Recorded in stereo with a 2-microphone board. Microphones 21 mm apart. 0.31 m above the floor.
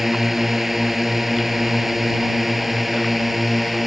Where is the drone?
10° right (ahead or behind); by 3.9 s 5° right (ahead or behind).